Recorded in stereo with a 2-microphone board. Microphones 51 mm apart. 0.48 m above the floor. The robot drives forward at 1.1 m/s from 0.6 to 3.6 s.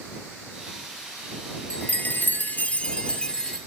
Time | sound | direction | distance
1.7 | a chime | 30° left (ahead or behind) | 0.8 m